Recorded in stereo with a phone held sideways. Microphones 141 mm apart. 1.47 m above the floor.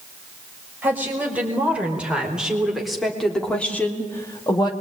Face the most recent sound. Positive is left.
turn(degrees=35)  # may be behind; listen again after turning